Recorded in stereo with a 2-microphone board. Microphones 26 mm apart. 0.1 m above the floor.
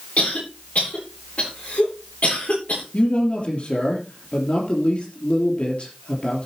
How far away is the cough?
About 8 m.